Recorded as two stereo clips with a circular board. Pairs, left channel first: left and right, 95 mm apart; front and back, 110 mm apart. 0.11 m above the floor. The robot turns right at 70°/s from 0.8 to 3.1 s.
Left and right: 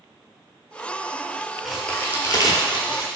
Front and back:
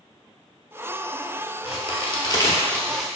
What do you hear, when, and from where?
1.6 s a crack: straight ahead, 0.6 m; by 3.1 s 95° left, 0.6 m